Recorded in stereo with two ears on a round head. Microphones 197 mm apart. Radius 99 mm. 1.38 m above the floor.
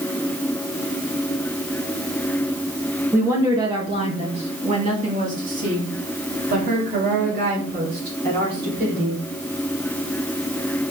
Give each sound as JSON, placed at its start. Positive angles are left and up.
{"t": 3.1, "sound": "a woman speaking", "side_deg": -10, "distance_m": 1.4}